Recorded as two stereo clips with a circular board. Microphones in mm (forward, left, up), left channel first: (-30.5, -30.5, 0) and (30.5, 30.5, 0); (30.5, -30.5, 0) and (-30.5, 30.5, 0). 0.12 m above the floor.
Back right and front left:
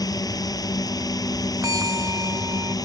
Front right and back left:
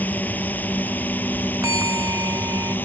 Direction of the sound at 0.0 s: 110° right.